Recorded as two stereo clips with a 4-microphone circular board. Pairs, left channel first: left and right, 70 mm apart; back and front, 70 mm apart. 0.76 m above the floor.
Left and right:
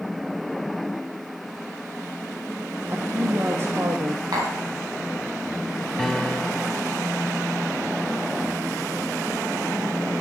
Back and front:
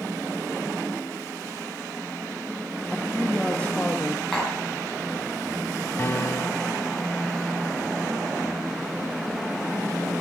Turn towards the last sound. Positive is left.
turn(degrees=170)